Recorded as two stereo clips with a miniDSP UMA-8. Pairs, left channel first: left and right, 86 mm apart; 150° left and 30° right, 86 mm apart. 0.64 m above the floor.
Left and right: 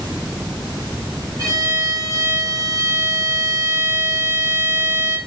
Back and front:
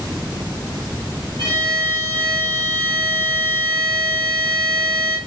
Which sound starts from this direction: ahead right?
A violin, at 1.4 s.